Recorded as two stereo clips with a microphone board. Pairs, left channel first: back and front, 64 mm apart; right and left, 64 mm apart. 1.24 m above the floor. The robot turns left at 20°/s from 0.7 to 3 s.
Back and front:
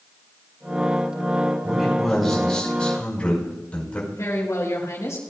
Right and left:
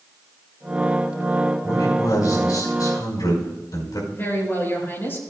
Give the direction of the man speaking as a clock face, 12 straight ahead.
3 o'clock.